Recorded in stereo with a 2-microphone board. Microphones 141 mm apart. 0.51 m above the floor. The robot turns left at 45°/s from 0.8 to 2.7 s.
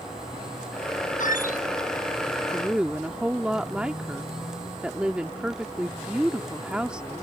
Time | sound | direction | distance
1.2 | a squeak | 65° left (ahead or behind) | ?
2.5 | a woman speaking | 5° right (ahead or behind) | ?